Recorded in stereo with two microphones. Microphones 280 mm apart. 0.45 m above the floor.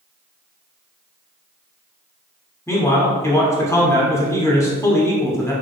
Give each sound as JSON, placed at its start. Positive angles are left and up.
{"t": 2.7, "sound": "a man speaking", "side_deg": 10, "distance_m": 0.9}